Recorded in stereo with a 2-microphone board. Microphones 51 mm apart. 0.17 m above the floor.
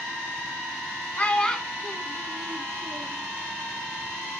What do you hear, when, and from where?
1.2 s a child speaking: 30° left (ahead or behind), 0.7 m; by 3.2 s 50° right (ahead or behind), 1.3 m